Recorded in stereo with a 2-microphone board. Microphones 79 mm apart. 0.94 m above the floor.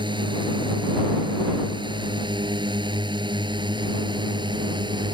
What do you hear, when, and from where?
0.0 s a drone: 80° right; by 5.1 s 75° right (ahead or behind)